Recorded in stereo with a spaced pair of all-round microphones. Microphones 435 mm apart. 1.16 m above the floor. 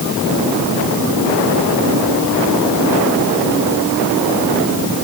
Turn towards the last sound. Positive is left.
No sound to turn to.